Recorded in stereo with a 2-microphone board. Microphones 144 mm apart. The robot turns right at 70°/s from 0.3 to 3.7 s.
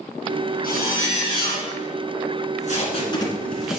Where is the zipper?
95° left, 3.5 m; by 1.7 s 170° left, 3.5 m.